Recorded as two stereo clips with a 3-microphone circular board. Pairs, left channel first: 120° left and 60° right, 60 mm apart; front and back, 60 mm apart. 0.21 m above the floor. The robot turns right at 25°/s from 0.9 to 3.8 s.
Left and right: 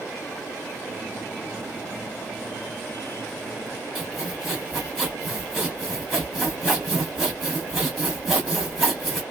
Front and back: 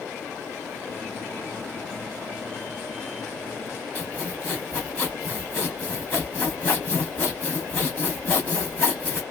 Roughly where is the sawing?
Ahead left.